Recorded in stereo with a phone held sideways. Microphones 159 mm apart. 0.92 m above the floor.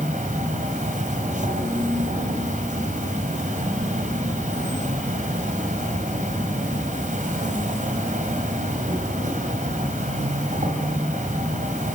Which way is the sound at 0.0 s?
60° right (ahead or behind).